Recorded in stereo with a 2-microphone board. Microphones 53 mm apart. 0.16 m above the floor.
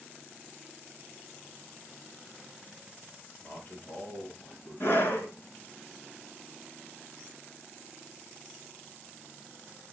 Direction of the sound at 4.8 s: 50° left (ahead or behind).